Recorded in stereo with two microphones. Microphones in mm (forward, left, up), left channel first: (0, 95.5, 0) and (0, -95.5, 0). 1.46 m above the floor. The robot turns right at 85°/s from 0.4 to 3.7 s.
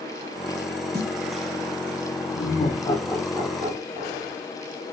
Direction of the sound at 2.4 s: 75° left (ahead or behind).